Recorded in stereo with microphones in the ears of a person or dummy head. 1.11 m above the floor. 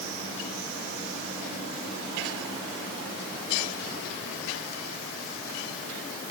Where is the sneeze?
I don't hear a sneeze.